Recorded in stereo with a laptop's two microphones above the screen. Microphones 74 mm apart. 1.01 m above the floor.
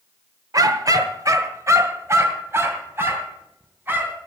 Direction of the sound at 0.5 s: 55° right (ahead or behind).